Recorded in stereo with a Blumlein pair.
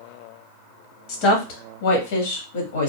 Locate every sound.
1.1 s a woman speaking: 40° left, 1.2 m; by 2.9 s 60° left, 1.9 m